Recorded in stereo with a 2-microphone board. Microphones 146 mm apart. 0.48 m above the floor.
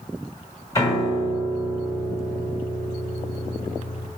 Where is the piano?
25° left (ahead or behind), 1.5 m.